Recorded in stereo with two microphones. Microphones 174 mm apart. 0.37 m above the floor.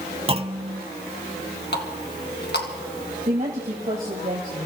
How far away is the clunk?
About 0.8 m.